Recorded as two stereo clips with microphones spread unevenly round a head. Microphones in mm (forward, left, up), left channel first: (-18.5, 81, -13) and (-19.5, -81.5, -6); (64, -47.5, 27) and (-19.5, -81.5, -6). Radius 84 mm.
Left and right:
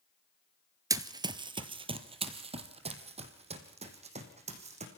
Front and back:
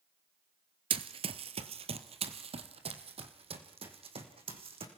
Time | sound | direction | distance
0.9 | running footsteps | 145° right | 1.3 m